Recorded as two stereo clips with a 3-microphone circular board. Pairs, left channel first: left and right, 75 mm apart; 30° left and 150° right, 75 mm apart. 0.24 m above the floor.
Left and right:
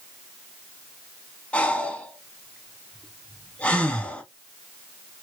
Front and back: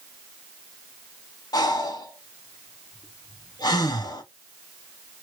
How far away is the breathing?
About 0.8 m.